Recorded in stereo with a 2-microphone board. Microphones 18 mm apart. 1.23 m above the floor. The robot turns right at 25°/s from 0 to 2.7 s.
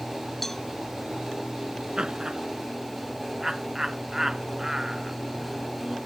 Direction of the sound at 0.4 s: 10° left (ahead or behind).